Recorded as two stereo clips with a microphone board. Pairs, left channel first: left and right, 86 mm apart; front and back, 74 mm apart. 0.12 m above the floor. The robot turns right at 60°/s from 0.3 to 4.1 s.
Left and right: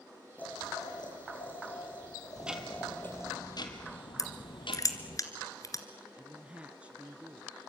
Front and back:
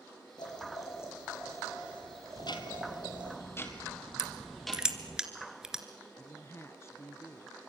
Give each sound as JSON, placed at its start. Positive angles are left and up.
{"t": 0.4, "sound": "boiling", "azimuth_deg": 15, "distance_m": 7.5}
{"t": 2.4, "sound": "ticking", "azimuth_deg": -20, "distance_m": 2.5}
{"t": 4.2, "sound": "crushing", "azimuth_deg": 100, "distance_m": 2.0}
{"t": 6.2, "sound": "a woman speaking", "azimuth_deg": -25, "distance_m": 1.3}